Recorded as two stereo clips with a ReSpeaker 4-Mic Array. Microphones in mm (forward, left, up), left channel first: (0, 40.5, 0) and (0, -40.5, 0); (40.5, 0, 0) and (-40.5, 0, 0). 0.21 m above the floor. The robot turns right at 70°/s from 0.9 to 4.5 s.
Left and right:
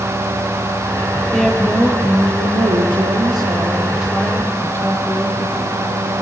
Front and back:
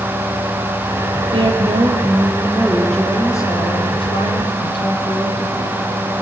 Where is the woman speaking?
165° left, 6 m; by 5.8 s 30° left, 6 m.